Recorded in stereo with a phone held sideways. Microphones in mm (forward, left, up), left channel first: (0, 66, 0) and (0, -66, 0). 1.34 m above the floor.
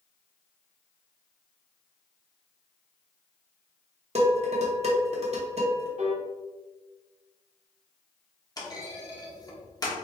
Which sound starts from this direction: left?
A clunk, at 8.6 s.